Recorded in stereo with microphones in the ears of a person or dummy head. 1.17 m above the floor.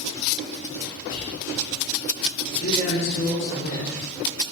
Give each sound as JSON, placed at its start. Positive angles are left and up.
{"t": 1.1, "sound": "whispering", "side_deg": 70, "distance_m": 2.0}
{"t": 2.5, "sound": "a man speaking", "side_deg": 65, "distance_m": 3.0}